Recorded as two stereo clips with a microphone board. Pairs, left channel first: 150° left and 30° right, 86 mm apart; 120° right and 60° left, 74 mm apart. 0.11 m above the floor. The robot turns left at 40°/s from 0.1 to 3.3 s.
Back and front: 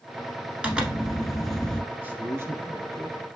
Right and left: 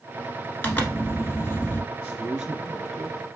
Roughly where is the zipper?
Right.